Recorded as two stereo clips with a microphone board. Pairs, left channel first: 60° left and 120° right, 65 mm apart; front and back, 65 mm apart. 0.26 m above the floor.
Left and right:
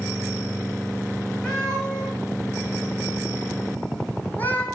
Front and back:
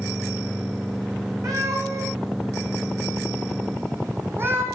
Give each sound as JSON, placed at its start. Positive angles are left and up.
{"t": 1.4, "sound": "a cat meowing", "azimuth_deg": 140, "distance_m": 4.0}